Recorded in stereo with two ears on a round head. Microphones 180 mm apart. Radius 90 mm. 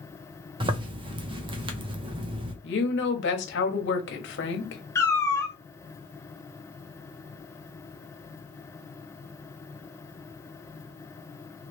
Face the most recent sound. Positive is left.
turn(degrees=15)  # may be behind; listen again after turning